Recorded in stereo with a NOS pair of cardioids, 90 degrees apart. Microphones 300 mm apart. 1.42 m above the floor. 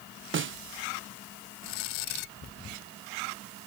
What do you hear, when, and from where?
0.3 s a snare drum: 40° right